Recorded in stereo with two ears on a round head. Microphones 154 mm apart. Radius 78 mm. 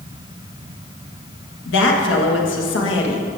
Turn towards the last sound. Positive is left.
turn(degrees=90)